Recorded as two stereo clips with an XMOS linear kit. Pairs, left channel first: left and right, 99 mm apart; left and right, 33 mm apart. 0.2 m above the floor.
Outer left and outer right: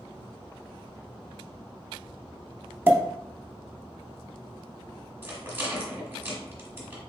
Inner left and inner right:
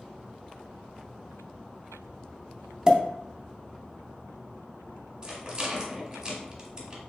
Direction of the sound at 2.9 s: 25° right (ahead or behind).